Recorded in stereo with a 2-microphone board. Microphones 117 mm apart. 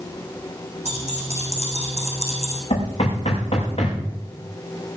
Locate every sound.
0.8 s keys jangling: 75° right (ahead or behind), 5.5 m; by 2.6 s 65° right (ahead or behind), 5 m
2.7 s knocking: 55° left (ahead or behind), 7.5 m